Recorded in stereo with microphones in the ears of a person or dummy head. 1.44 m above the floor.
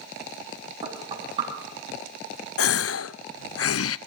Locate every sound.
0.8 s knocking: 30° right (ahead or behind), 6 m
2.6 s a gasp: 70° left (ahead or behind), 0.5 m